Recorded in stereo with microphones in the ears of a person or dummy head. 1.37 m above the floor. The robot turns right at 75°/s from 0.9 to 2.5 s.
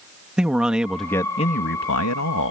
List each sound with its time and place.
0.4 s a man speaking: 5° right; by 2.5 s 115° left